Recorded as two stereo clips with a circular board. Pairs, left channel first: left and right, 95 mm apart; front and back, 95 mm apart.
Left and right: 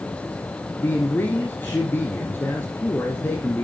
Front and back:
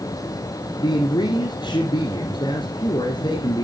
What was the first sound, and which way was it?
A man speaking, 25° left.